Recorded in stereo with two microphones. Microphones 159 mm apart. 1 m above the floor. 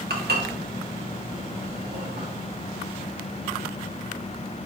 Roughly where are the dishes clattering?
Right.